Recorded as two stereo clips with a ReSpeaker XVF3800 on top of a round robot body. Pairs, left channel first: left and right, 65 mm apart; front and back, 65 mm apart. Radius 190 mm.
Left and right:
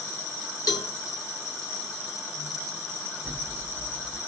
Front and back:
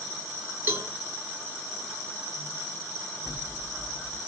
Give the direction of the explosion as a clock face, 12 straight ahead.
1 o'clock.